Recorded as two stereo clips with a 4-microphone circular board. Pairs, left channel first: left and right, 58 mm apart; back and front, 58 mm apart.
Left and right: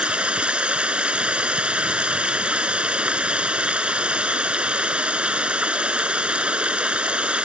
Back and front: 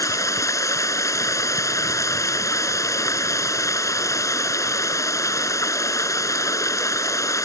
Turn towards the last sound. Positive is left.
turn(degrees=-160)